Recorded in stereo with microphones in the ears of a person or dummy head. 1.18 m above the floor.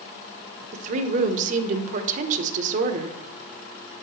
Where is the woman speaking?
40° right (ahead or behind), 1.0 m.